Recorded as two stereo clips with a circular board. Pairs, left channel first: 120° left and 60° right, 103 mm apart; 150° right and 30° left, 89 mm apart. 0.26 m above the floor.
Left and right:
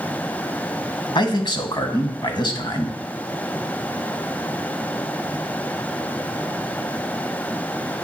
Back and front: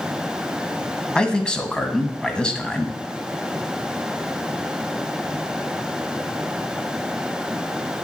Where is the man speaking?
135° left, 1.5 m.